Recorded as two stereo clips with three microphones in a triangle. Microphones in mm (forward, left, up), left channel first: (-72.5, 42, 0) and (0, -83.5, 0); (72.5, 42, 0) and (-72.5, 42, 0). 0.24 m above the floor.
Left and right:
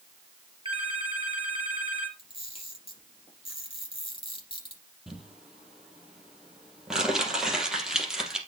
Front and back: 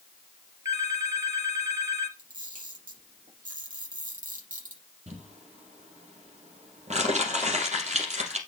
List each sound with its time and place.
0.7 s a phone ringing: 110° right, 4 m
2.2 s a camera shutter: 170° left, 7 m
5.1 s crumpling: 145° right, 3 m